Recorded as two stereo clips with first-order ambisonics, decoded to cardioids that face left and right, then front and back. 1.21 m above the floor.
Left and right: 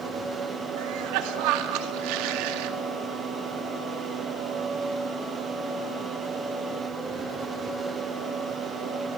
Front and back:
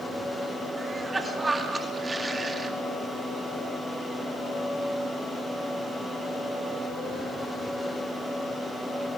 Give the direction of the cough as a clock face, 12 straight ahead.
3 o'clock.